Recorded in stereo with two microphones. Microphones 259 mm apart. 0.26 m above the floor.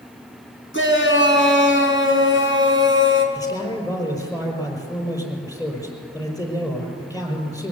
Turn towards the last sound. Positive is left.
turn(degrees=15)  # may be behind; listen again after turning